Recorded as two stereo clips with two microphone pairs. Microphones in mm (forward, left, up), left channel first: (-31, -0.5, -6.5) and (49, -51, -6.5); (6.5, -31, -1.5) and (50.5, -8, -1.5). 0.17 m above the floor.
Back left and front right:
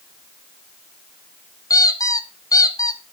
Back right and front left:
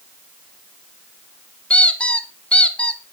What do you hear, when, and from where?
1.7 s a squeak: 155° left, 0.8 m